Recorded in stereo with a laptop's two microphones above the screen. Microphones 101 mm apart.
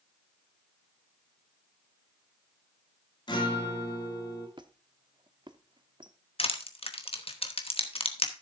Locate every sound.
3.3 s a guitar: 50° left (ahead or behind), 2.5 m
4.6 s a squeak: 50° right (ahead or behind), 0.7 m
6.4 s crushing: 75° left (ahead or behind), 1.0 m